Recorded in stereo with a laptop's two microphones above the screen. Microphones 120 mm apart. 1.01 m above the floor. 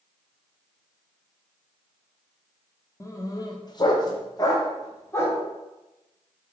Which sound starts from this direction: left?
A dog barking, at 3.0 s.